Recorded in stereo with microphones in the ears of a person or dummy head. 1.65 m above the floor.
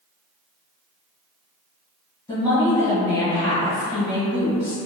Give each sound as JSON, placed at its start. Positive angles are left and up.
{"t": 2.3, "sound": "a woman speaking", "side_deg": 15, "distance_m": 1.8}